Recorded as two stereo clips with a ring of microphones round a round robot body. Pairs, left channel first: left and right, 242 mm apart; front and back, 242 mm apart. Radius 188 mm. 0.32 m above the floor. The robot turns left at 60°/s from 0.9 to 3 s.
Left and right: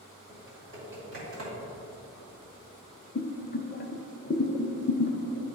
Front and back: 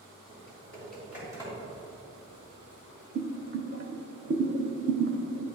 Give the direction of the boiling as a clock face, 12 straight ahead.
7 o'clock.